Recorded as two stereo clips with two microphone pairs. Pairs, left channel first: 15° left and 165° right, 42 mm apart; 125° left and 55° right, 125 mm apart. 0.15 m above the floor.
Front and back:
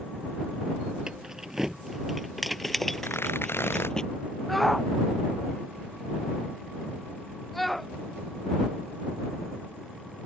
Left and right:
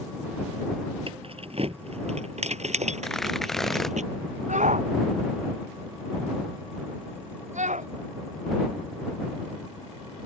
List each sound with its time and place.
1.1 s keys jangling: 95° right; by 4.0 s 55° right
3.0 s tearing paper: 35° left
4.5 s a shout: 70° right